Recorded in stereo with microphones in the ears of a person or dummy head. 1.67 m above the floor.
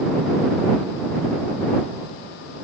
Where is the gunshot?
I don't hear a gunshot.